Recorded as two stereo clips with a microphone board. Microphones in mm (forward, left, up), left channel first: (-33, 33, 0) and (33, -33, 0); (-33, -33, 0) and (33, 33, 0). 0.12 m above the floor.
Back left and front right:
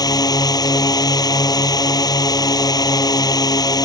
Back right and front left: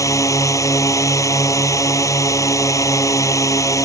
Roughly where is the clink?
I don't hear a clink.